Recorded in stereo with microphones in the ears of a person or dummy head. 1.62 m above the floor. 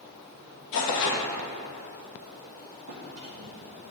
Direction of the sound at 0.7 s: 65° left (ahead or behind).